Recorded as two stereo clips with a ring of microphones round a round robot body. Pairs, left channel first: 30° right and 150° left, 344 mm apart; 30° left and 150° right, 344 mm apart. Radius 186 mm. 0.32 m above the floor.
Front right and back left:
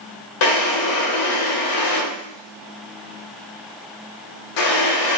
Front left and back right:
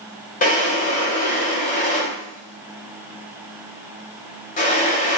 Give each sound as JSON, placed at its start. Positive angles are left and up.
{"t": 0.4, "sound": "a drawer", "azimuth_deg": -35, "distance_m": 0.6}